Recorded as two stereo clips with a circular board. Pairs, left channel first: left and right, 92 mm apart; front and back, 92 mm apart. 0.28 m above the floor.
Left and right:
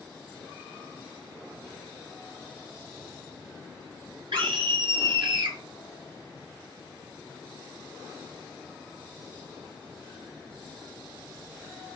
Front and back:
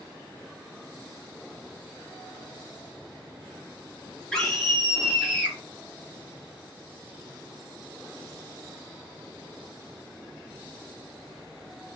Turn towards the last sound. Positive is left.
turn(degrees=-75)